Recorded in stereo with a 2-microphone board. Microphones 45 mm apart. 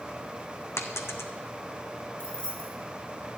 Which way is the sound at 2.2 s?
20° left (ahead or behind).